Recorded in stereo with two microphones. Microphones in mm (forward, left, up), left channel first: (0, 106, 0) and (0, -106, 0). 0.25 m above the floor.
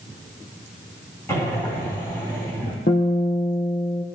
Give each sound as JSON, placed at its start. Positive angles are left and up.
{"t": 1.3, "sound": "breathing", "side_deg": 10, "distance_m": 6.0}
{"t": 2.9, "sound": "a guitar", "side_deg": 55, "distance_m": 3.0}